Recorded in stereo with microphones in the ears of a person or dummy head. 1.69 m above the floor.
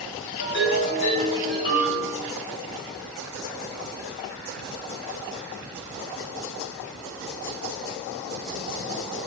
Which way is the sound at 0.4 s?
60° left (ahead or behind).